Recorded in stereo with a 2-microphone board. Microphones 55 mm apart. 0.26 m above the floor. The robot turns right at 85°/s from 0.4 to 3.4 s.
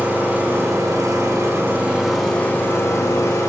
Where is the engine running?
150° right, 7.5 m; by 3.5 s 105° left, 7.5 m.